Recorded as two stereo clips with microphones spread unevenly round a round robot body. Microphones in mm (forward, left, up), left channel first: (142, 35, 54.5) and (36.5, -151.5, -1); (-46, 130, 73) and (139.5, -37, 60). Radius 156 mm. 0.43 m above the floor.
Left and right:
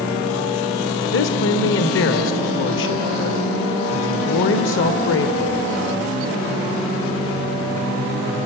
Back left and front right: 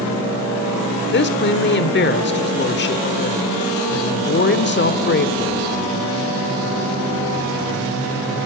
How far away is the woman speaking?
About 1.5 m.